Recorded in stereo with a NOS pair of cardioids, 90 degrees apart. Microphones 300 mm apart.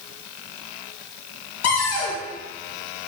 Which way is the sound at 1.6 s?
60° left.